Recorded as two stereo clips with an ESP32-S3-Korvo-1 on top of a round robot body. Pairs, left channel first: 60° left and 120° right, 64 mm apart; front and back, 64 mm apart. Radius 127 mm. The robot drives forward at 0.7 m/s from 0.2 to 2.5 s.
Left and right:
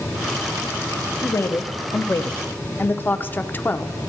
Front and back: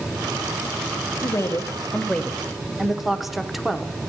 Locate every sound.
1.2 s a woman speaking: 25° left, 1.2 m; by 4.0 s 95° left, 0.8 m